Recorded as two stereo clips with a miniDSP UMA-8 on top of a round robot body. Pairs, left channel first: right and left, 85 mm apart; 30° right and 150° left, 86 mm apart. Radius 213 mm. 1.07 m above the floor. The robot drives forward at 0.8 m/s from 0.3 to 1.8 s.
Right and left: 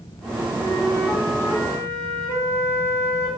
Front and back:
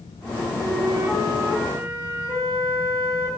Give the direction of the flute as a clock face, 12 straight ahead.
5 o'clock.